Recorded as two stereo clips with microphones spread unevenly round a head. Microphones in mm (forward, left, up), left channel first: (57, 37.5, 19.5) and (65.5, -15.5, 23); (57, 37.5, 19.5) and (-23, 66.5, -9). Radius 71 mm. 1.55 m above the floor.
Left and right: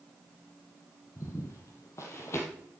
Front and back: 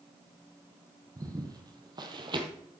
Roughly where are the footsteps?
Left.